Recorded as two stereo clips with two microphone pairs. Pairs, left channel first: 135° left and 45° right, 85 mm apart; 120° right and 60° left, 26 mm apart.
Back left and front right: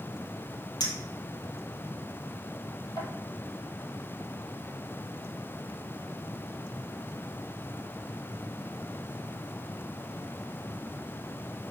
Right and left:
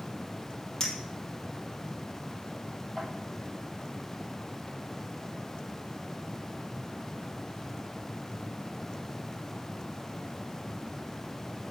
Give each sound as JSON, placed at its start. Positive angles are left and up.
{"t": 0.8, "sound": "a clink", "azimuth_deg": 175, "distance_m": 3.0}